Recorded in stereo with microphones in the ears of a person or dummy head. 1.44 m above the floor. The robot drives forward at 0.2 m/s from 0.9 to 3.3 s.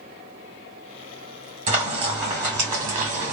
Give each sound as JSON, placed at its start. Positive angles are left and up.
{"t": 1.7, "sound": "frying", "side_deg": -35, "distance_m": 2.0}